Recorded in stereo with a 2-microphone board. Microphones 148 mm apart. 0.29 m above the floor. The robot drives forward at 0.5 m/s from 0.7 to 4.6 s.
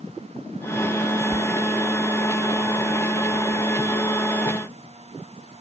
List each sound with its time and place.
1.3 s a door slam: 5° left (ahead or behind)